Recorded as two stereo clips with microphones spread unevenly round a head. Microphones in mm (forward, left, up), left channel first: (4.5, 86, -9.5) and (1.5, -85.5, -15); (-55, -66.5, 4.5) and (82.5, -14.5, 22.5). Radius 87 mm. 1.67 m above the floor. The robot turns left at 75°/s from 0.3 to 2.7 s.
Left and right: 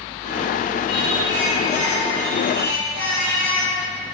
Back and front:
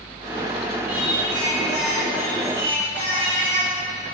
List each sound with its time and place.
0.9 s singing: 105° left, 2 m; by 3.8 s 30° right, 2 m